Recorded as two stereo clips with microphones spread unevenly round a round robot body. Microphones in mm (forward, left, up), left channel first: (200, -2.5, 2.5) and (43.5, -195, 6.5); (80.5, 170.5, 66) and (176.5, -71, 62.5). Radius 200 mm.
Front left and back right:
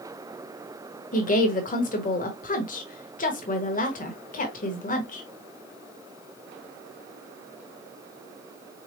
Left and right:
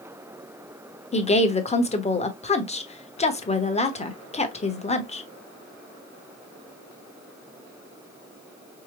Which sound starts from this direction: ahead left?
A woman speaking, at 1.1 s.